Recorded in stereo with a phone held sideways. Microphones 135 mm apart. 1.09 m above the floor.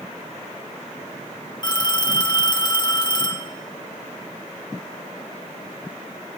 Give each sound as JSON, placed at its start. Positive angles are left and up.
{"t": 1.6, "sound": "a phone ringing", "side_deg": 30, "distance_m": 5.0}